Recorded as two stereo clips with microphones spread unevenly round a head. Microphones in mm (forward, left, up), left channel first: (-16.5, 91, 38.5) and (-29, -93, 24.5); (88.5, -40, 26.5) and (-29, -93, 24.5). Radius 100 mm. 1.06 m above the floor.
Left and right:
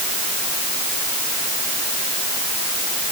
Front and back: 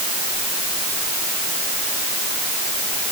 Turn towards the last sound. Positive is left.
No sound to turn to.